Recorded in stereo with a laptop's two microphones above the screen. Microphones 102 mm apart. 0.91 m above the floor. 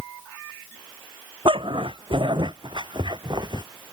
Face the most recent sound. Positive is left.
turn(degrees=-45)  # may be behind; listen again after turning